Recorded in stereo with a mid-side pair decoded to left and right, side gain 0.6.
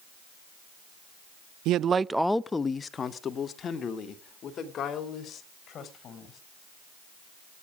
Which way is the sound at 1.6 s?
70° right.